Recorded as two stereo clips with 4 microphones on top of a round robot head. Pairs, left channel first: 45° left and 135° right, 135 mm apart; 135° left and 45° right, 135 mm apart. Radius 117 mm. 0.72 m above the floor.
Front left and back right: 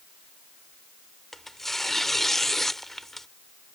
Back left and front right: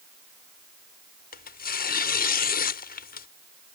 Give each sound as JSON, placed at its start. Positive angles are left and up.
{"t": 1.3, "sound": "tearing paper", "azimuth_deg": 135}